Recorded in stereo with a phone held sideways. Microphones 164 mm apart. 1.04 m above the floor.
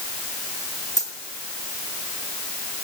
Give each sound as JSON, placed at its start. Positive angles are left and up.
{"t": 1.0, "sound": "a dropped coin", "side_deg": 50, "distance_m": 3.0}